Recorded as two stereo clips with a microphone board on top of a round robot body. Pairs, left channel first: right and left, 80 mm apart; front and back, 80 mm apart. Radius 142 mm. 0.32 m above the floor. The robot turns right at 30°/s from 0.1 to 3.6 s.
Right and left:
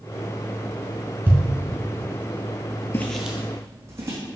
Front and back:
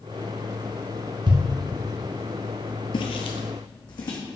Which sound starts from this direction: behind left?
A thud, at 1.3 s.